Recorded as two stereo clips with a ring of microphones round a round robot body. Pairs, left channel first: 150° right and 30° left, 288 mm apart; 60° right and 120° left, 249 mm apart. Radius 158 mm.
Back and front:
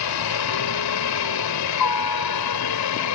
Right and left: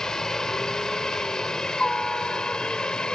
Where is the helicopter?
150° right; by 3.1 s 145° right.